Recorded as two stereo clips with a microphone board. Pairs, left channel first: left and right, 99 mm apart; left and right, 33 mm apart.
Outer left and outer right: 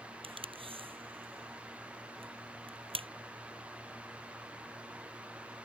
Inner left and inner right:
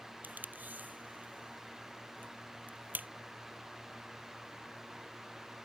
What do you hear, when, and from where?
0.2 s tape being pulled: 60° right (ahead or behind)